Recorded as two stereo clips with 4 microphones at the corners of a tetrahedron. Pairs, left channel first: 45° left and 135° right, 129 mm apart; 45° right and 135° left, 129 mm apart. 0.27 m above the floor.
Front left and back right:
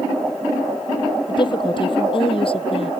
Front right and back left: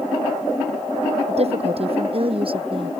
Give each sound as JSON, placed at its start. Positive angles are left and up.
{"t": 1.3, "sound": "a woman speaking", "azimuth_deg": 100}